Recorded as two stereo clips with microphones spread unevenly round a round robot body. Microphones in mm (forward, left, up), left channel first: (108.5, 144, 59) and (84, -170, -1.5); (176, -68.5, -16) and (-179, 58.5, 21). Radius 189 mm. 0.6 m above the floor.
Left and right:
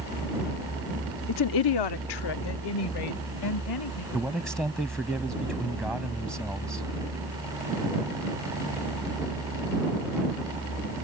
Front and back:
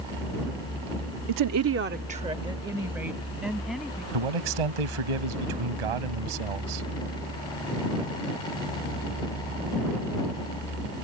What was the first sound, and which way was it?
A woman speaking, 140° left.